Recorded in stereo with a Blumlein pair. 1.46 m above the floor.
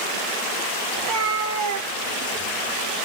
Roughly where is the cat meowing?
Ahead right.